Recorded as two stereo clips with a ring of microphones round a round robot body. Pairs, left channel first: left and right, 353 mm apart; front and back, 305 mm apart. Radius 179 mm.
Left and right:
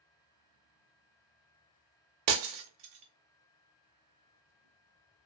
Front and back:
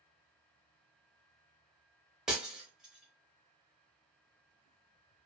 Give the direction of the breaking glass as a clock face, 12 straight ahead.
3 o'clock.